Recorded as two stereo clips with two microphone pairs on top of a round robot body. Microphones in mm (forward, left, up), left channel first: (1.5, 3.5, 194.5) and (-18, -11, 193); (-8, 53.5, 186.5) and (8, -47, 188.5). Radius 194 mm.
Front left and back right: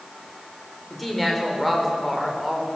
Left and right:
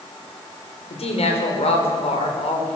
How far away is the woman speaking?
About 4.5 m.